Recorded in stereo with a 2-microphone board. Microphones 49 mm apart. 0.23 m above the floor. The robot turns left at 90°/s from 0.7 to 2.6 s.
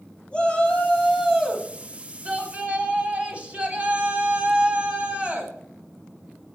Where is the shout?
50° left, 1.5 m; by 5.5 s 120° right, 1.5 m.